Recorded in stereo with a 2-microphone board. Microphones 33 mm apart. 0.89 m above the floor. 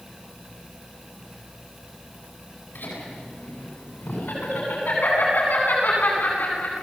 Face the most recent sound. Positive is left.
turn(degrees=65)  # may be behind; listen again after turning